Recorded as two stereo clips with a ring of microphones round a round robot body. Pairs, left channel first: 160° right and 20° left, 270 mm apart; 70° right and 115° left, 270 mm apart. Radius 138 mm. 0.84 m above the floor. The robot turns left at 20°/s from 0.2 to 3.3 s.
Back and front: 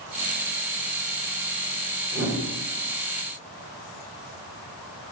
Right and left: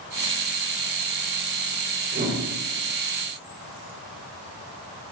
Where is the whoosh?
65° left, 1.0 m; by 2.4 s 55° left, 1.0 m.